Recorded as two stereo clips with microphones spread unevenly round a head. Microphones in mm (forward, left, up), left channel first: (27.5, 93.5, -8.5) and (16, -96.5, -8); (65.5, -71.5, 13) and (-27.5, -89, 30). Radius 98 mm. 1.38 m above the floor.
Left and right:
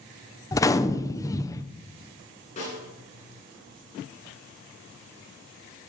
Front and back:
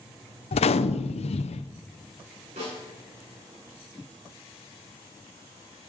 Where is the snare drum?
145° left, 7.5 m.